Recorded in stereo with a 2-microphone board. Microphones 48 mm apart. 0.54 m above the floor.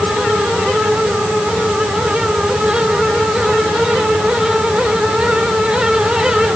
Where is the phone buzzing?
I don't hear a phone buzzing.